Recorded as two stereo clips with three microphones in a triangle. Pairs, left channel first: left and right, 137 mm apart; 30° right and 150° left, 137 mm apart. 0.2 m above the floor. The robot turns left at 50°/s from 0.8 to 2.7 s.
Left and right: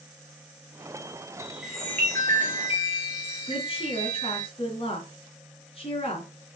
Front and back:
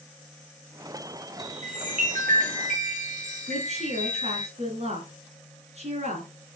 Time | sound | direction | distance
1.4 | a chime | 165° right | 3 m
3.5 | a woman speaking | 125° left | 2.5 m